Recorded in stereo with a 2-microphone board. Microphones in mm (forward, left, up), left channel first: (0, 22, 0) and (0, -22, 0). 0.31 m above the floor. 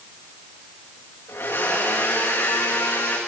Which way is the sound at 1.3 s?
60° left (ahead or behind).